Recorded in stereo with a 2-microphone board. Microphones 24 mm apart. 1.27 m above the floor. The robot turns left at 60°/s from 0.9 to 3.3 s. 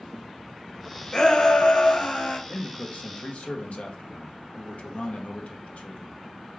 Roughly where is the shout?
Behind left.